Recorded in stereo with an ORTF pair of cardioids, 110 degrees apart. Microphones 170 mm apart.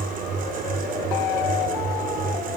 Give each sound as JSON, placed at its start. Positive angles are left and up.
{"t": 0.0, "sound": "a fan", "azimuth_deg": -60, "distance_m": 5.5}